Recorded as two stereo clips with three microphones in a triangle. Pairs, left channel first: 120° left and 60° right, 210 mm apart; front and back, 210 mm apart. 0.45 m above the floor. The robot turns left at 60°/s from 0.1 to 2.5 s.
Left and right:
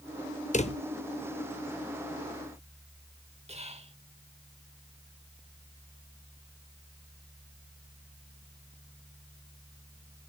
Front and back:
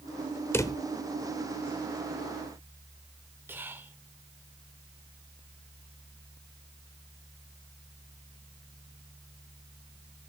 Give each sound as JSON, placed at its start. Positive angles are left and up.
{"t": 0.5, "sound": "a drawer", "azimuth_deg": 75, "distance_m": 0.8}
{"t": 3.5, "sound": "whispering", "azimuth_deg": -105, "distance_m": 1.4}